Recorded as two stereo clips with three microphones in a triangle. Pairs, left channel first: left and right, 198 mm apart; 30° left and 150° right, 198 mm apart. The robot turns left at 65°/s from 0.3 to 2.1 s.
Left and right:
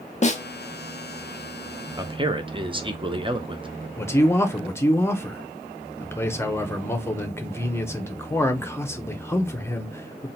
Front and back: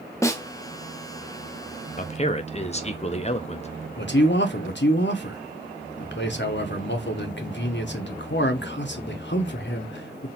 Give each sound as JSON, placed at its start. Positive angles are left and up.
{"t": 0.2, "sound": "a snare drum", "azimuth_deg": 95, "distance_m": 0.7}
{"t": 2.0, "sound": "a man speaking", "azimuth_deg": -20, "distance_m": 0.7}
{"t": 4.0, "sound": "a man speaking", "azimuth_deg": 15, "distance_m": 0.9}